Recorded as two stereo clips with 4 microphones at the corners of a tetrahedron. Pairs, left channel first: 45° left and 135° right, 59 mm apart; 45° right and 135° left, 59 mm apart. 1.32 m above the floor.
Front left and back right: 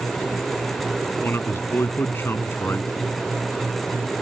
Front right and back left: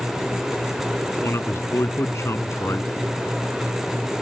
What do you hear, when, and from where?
1.2 s a man speaking: 5° right